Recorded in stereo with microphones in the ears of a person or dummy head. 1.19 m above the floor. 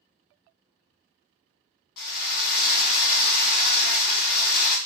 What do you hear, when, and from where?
2.0 s a drill: 55° left (ahead or behind), 1.5 m